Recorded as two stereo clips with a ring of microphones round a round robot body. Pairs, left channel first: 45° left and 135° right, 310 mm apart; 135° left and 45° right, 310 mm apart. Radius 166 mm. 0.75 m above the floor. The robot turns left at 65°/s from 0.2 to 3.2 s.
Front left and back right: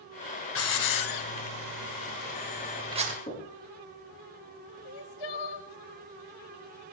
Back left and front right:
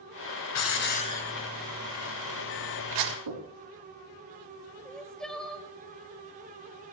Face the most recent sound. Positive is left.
turn(degrees=45)